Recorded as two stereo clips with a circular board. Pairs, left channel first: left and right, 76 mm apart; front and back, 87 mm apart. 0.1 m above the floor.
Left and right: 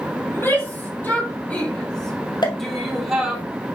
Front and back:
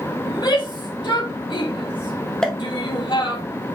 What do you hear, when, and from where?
0.3 s a shout: 30° left, 3.5 m; by 3.4 s 10° right, 3 m
2.4 s a pop: 80° left, 1.7 m